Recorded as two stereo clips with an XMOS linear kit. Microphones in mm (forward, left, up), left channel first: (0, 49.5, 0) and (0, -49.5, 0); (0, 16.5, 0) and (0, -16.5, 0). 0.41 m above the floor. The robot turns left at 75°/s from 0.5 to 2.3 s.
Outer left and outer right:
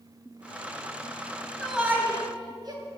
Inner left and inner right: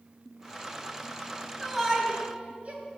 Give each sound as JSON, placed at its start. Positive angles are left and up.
{"t": 1.6, "sound": "a shout", "side_deg": 5, "distance_m": 2.5}